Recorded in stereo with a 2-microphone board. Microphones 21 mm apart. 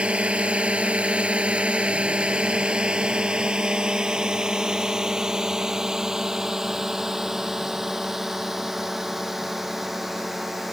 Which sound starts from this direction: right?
A drone, at 0.0 s.